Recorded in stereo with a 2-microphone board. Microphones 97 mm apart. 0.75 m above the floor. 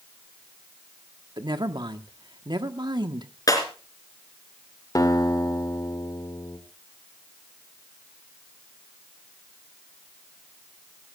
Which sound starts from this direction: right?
A woman speaking, at 1.4 s.